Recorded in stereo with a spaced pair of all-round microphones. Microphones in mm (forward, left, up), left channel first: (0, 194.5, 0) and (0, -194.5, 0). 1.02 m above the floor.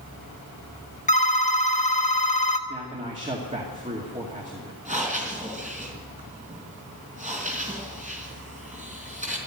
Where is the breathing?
20° right (ahead or behind), 4.5 m.